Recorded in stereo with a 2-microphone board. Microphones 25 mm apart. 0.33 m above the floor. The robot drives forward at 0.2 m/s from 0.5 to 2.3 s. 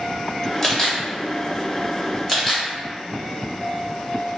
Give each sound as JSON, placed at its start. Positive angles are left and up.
{"t": 0.6, "sound": "a camera shutter", "side_deg": 20, "distance_m": 1.3}